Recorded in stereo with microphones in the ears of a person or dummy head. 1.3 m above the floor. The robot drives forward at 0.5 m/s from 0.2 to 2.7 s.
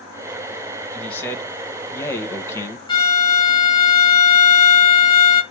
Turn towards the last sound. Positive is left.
turn(degrees=25)  # may be behind; listen again after turning